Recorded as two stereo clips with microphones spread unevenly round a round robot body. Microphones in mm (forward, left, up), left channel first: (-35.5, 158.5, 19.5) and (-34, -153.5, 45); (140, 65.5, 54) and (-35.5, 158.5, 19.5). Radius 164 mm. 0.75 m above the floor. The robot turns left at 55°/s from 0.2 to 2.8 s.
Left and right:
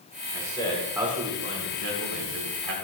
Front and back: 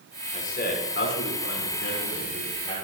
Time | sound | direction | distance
0.3 | a man speaking | 30° left | 4 m